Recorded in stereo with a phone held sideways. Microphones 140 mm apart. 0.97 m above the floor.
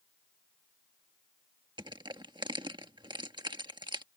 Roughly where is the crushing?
Right.